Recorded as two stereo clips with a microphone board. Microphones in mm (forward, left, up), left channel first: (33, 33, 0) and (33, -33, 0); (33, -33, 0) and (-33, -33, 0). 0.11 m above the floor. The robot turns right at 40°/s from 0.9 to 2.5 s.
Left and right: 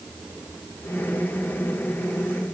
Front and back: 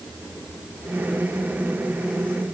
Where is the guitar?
No guitar in this recording.